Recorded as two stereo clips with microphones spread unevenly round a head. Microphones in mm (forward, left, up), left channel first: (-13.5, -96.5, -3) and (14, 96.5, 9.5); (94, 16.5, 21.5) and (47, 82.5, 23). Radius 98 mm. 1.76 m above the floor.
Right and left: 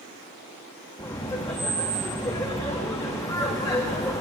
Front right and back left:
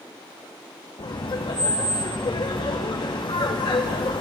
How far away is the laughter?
About 0.7 m.